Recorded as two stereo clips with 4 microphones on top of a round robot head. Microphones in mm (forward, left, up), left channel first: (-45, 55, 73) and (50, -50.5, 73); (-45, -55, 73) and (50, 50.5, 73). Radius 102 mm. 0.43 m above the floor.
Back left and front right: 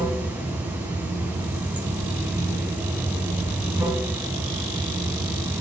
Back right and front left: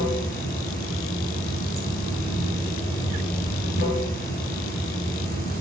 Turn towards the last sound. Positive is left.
turn(degrees=-125)